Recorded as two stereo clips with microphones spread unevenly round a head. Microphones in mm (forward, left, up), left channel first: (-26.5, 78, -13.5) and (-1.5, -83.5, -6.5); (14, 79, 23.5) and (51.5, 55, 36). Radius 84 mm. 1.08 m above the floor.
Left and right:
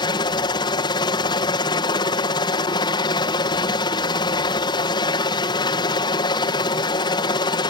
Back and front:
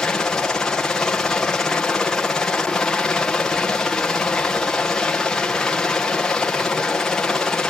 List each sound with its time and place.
0.0 s a helicopter: 125° left